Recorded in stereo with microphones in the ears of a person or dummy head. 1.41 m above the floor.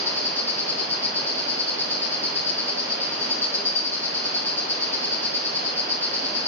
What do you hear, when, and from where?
0.0 s an insect: 10° left (ahead or behind), 2.5 m